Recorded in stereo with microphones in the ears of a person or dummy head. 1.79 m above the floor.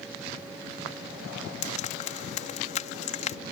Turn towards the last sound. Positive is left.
turn(degrees=40)  # may be behind; listen again after turning